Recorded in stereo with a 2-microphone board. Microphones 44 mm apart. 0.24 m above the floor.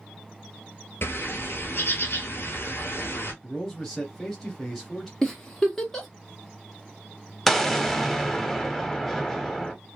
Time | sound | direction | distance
1.0 | a bird | 50° left (ahead or behind) | 1.0 m
3.4 | a man speaking | 5° left (ahead or behind) | 0.9 m
5.2 | a giggle | 10° left (ahead or behind) | 1.0 m
7.5 | an explosion | 5° left (ahead or behind) | 0.6 m